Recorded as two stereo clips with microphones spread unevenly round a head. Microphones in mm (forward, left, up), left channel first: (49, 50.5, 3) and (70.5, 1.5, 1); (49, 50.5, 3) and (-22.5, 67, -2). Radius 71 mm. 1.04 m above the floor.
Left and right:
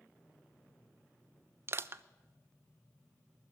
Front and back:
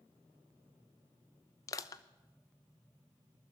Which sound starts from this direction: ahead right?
Crushing, at 1.7 s.